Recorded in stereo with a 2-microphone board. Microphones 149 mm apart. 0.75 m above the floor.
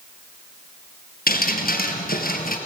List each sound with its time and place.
1.3 s dripping: 75° left (ahead or behind), 2.5 m